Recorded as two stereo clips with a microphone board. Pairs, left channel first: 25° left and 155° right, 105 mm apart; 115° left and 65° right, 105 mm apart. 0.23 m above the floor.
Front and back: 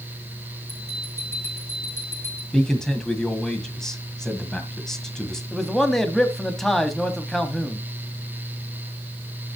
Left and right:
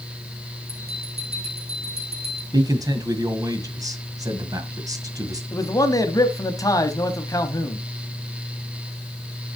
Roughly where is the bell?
Ahead right.